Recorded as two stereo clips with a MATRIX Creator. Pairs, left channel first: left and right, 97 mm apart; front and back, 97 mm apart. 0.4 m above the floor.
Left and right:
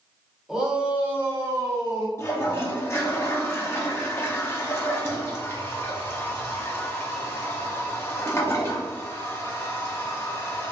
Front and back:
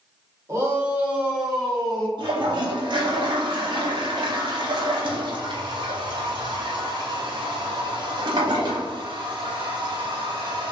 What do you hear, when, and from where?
0.5 s a shout: 170° right, 0.9 m; by 2.1 s 75° right, 1.0 m
2.2 s a toilet flushing: 150° left, 0.7 m